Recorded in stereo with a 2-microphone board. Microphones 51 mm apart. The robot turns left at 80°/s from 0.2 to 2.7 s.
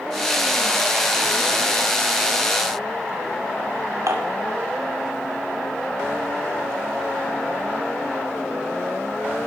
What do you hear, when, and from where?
4.1 s dishes clattering: 90° right, 2.5 m